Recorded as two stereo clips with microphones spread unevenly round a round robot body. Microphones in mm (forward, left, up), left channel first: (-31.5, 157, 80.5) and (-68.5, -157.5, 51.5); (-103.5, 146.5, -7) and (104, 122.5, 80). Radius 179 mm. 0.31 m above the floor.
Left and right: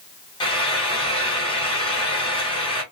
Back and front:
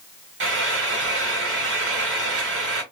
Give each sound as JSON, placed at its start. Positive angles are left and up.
{"t": 0.4, "sound": "frying", "azimuth_deg": 10, "distance_m": 1.1}